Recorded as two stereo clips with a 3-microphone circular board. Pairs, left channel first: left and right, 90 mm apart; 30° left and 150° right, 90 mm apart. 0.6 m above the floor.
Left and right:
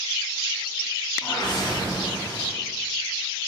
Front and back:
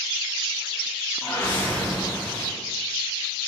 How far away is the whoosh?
About 1.6 m.